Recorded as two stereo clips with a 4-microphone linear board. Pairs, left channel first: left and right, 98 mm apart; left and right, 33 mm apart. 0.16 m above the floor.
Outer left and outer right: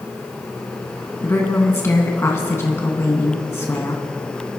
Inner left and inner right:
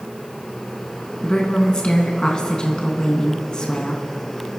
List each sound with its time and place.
1.2 s a woman speaking: 30° left (ahead or behind), 1.6 m